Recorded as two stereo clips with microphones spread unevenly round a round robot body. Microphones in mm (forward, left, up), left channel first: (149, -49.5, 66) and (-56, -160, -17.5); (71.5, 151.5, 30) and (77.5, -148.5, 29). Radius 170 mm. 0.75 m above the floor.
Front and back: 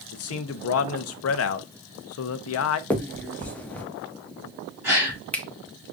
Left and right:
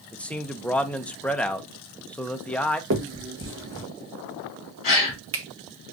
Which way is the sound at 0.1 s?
5° left.